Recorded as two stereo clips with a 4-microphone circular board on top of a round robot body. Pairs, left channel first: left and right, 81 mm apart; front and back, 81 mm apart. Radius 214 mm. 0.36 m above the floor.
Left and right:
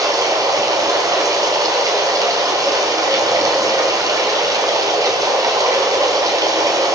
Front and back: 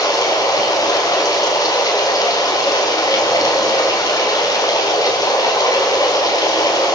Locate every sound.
0.0 s running water: 45° right, 3.5 m